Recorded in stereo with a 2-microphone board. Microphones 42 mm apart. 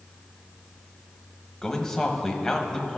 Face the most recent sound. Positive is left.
turn(degrees=10)  # may be behind; listen again after turning